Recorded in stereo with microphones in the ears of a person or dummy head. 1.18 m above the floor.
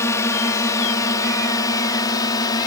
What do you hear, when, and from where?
0.0 s a drone: 10° left (ahead or behind); by 2.7 s 15° left (ahead or behind)